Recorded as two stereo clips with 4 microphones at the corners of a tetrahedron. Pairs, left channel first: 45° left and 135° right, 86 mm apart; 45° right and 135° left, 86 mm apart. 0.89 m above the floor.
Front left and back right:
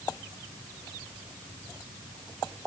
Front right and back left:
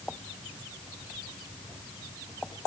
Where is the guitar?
No guitar in this recording.